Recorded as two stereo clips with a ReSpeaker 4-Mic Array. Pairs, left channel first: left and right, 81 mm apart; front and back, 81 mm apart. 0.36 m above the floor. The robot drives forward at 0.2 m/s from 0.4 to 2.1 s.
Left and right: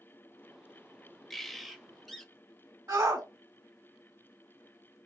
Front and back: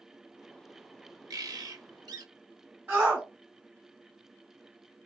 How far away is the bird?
About 0.6 m.